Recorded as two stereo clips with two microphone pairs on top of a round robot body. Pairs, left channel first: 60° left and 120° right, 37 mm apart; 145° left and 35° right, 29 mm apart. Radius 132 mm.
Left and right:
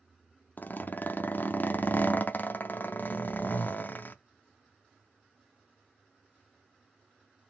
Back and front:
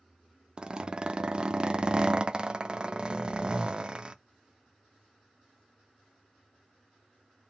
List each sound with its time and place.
0.6 s a zipper: 25° left, 0.6 m